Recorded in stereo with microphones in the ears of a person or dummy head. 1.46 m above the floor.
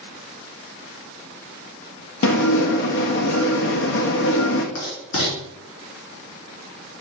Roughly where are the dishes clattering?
Left.